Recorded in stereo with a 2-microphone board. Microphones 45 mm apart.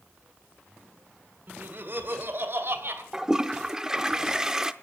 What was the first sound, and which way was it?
Laughter, 50° right (ahead or behind).